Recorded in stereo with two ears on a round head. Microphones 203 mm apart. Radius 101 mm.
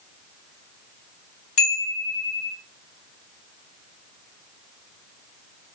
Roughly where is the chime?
Left.